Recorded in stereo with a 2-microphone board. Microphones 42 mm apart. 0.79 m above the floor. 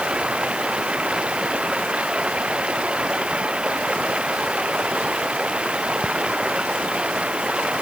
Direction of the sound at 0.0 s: 25° right (ahead or behind).